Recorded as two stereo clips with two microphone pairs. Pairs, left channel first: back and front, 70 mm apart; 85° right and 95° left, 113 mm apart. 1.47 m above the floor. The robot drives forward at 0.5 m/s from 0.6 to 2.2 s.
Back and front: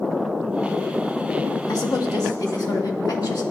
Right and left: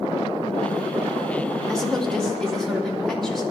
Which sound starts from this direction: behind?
A woman speaking, at 1.7 s.